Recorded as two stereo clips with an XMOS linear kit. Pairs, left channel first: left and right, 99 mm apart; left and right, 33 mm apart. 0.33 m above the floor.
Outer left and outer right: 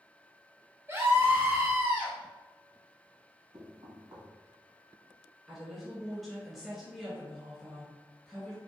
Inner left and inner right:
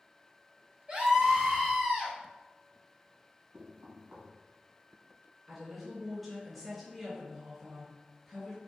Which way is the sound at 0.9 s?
30° right (ahead or behind).